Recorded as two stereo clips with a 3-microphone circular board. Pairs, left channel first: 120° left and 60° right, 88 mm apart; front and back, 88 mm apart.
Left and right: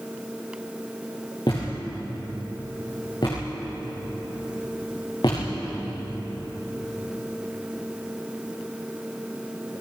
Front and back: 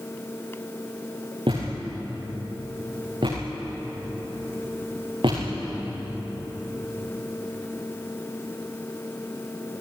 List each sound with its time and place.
1.5 s a thud: 155° left, 10 m